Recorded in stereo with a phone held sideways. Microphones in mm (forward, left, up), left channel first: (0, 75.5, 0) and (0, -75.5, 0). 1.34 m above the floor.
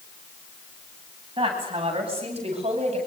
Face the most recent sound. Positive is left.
turn(degrees=-45)  # may be behind; listen again after turning